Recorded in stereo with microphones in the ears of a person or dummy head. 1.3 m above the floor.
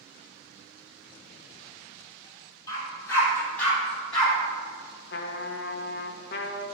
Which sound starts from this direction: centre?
A dog barking, at 2.7 s.